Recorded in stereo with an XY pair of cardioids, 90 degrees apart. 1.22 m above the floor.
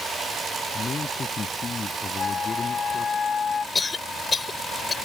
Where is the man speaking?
45° left.